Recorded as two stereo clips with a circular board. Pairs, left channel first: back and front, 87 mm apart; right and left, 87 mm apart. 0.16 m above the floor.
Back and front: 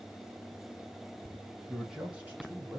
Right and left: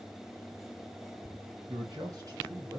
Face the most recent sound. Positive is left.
turn(degrees=55)